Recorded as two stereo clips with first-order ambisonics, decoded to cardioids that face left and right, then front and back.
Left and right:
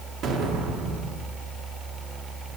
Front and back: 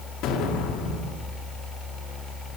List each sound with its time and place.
0.2 s an explosion: 40° right, 1.5 m